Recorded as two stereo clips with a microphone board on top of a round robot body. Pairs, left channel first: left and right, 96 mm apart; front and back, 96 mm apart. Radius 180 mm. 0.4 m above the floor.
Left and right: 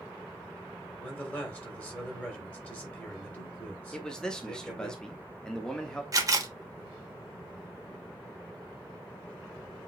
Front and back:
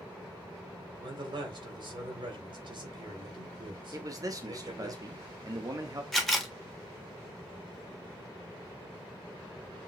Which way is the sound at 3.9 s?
170° left.